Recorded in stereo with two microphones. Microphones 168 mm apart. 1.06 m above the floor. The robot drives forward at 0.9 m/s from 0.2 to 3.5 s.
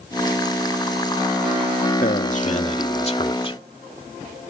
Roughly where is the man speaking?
Left.